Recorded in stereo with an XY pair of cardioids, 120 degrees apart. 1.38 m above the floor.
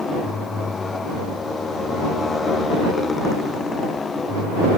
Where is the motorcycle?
25° left; by 4.8 s 30° left.